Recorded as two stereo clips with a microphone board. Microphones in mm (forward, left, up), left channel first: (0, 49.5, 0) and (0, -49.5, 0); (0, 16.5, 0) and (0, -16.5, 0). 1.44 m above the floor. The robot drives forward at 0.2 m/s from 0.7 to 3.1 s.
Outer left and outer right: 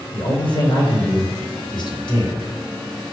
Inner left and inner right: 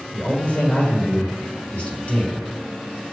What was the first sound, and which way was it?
A man speaking, 60° left (ahead or behind).